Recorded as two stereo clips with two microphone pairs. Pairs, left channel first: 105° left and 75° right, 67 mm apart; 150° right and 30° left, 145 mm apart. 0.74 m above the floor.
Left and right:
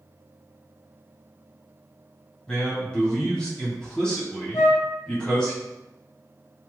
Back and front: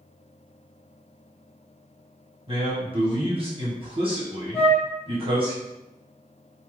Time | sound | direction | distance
2.5 | a man speaking | 35° left | 1.3 m
4.5 | a flute | 135° left | 1.4 m